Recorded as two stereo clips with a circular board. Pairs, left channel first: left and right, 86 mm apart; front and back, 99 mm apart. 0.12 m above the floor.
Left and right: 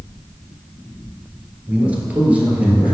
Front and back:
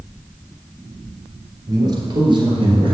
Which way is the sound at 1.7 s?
155° right.